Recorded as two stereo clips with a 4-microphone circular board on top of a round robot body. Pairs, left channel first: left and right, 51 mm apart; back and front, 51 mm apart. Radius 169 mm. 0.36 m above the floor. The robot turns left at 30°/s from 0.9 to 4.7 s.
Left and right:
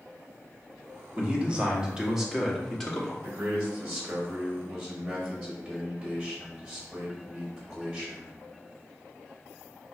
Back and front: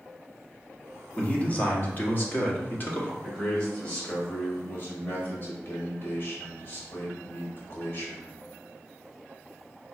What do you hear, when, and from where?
1.2 s a man speaking: 135° right, 1.3 m; by 3.1 s 165° left, 1.3 m
3.2 s a man speaking: 130° right, 1.5 m; by 8.3 s 175° right, 1.5 m